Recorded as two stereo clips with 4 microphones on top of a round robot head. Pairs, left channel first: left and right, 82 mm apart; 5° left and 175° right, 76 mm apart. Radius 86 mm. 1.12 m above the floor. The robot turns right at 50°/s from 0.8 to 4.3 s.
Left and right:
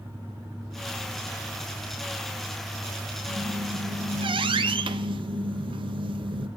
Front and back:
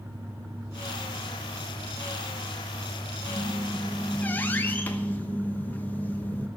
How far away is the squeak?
About 0.8 m.